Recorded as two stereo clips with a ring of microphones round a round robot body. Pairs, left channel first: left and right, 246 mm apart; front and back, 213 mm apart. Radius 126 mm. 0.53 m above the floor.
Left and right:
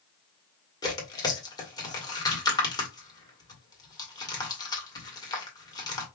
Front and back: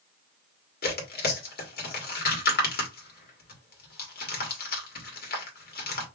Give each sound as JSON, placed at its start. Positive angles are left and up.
{"t": 0.8, "sound": "tearing paper", "azimuth_deg": 20, "distance_m": 1.7}